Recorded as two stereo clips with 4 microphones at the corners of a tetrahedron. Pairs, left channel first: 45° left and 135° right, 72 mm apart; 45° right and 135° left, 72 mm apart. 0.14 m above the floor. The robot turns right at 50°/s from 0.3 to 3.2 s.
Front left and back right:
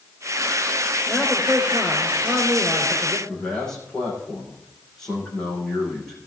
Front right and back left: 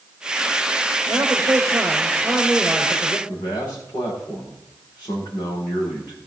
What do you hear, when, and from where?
1.1 s a man speaking: 155° left, 2.5 m; by 3.2 s 95° right, 2.5 m
3.3 s a man speaking: 35° right, 8 m